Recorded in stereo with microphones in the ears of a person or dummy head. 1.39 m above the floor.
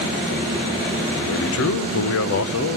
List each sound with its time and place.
1.1 s a man speaking: 70° left (ahead or behind), 0.8 m